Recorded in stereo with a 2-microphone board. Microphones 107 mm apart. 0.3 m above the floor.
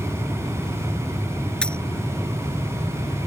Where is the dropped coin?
10° left (ahead or behind).